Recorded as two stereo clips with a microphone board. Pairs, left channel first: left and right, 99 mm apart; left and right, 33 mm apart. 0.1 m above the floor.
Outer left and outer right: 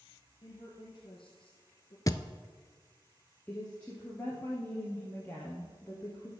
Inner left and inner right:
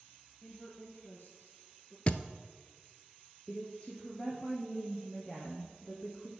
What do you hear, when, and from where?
0.4 s a woman speaking: 50° left (ahead or behind), 2.5 m
2.1 s a thud: 35° left (ahead or behind), 0.5 m
3.5 s a woman speaking: 15° left (ahead or behind), 1.8 m